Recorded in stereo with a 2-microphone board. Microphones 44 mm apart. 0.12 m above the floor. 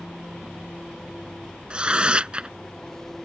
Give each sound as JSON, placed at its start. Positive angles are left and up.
{"t": 0.0, "sound": "an engine running", "side_deg": 10}
{"t": 1.7, "sound": "tearing paper", "side_deg": -25}